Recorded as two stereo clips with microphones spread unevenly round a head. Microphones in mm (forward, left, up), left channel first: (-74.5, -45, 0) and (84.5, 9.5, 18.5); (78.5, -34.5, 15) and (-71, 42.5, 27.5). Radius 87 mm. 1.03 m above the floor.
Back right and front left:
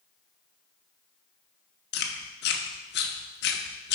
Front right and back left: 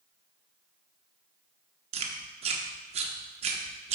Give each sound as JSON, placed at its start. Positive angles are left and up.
{"t": 1.9, "sound": "chewing", "azimuth_deg": -165, "distance_m": 0.8}